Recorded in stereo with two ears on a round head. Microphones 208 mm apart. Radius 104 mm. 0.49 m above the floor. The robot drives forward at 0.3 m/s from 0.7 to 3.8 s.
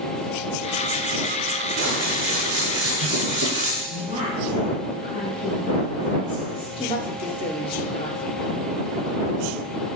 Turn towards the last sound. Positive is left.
turn(degrees=20)  # may be behind; listen again after turning